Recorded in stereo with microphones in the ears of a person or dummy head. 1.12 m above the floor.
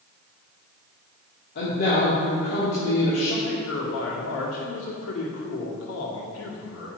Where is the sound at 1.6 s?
50° left (ahead or behind), 2.5 m.